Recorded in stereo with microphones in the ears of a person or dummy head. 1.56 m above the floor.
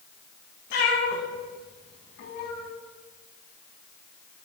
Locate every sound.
0.7 s a cat meowing: 50° left (ahead or behind), 1.2 m